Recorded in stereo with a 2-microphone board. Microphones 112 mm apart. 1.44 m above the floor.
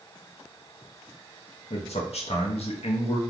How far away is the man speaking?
About 0.6 m.